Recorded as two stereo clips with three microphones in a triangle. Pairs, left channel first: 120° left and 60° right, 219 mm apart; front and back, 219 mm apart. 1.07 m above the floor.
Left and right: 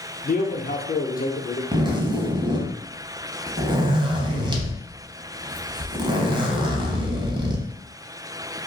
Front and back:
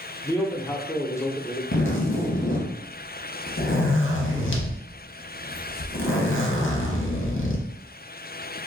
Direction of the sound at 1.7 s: 10° left.